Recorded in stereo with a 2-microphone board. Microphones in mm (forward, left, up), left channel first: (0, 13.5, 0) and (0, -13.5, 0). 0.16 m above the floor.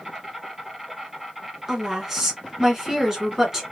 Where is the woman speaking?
15° right (ahead or behind), 1.4 m.